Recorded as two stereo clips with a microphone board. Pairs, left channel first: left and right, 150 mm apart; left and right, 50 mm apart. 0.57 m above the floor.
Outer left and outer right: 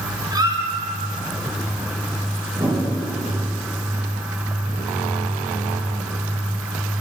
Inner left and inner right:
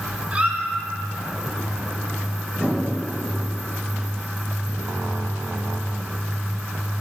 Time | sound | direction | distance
0.3 | a squeak | 25° right (ahead or behind) | 1.7 m
2.5 | a whoosh | 45° right (ahead or behind) | 2.5 m